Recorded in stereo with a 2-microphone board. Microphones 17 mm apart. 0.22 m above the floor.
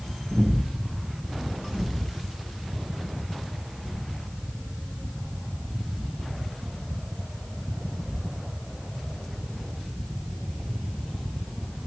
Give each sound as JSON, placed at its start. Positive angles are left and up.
{"t": 0.3, "sound": "breathing", "side_deg": -60, "distance_m": 3.5}